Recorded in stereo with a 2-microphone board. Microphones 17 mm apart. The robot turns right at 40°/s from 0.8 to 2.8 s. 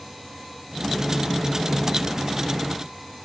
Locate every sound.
Only background noise.